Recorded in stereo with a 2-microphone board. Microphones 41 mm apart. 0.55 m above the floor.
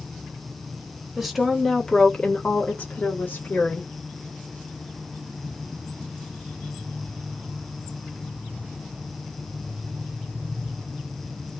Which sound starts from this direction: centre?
A woman speaking, at 1.2 s.